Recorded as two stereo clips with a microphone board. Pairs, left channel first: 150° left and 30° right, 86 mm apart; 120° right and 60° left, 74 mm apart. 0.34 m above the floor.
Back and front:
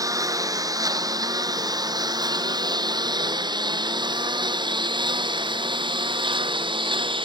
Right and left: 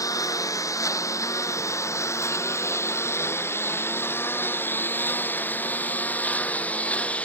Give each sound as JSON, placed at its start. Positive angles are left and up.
{"t": 0.0, "sound": "a lawn mower", "azimuth_deg": -80}